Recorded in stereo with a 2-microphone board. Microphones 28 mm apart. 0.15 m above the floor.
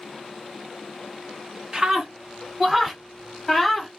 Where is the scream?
25° right (ahead or behind), 1.5 m; by 3.9 s centre (ahead or behind), 1.5 m.